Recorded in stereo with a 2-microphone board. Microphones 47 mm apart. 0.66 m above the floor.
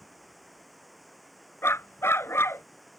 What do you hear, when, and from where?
0.0 s running water: centre (ahead or behind)
1.6 s a dog barking: 75° left (ahead or behind)